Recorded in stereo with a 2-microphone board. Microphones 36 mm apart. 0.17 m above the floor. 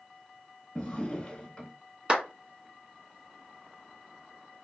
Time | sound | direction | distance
0.8 | a drawer | 20° left (ahead or behind) | 1.1 m
2.1 | a clap | 30° right (ahead or behind) | 1.7 m